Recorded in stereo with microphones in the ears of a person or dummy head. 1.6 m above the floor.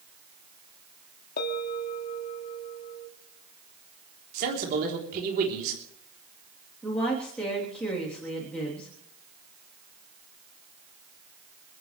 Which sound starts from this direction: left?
A bell, at 1.4 s.